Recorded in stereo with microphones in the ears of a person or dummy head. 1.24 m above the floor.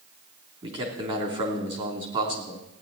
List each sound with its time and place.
0.6 s a man speaking: 30° right (ahead or behind), 3 m